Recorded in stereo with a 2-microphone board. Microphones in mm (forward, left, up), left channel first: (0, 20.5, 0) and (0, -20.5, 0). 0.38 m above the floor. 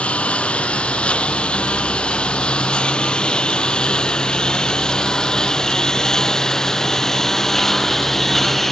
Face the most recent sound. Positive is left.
turn(degrees=5)  # may be behind; listen again after turning